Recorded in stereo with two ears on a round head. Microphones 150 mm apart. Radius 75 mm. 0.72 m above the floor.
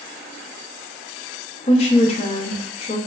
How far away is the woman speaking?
About 0.6 m.